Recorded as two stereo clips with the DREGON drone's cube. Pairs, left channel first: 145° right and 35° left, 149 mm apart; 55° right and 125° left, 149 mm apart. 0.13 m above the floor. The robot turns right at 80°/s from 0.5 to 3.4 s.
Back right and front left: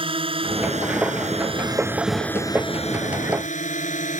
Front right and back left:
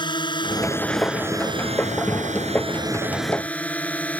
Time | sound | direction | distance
0.0 | a drone | 5° right | ?